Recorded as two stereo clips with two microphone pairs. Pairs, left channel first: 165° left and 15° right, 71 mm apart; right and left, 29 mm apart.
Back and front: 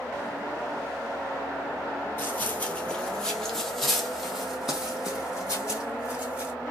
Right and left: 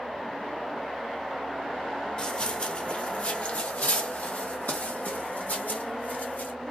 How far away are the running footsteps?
About 1.3 m.